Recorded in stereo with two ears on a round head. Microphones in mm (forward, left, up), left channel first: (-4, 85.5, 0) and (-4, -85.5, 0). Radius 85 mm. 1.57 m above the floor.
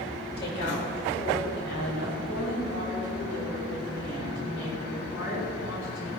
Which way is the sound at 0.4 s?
55° left (ahead or behind).